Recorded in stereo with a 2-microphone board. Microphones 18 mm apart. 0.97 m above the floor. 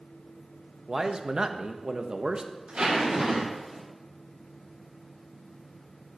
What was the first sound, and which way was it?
A man speaking, 45° right (ahead or behind).